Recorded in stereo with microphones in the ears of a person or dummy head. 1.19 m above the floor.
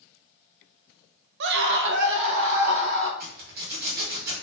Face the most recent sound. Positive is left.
turn(degrees=-60)  # may be behind; listen again after turning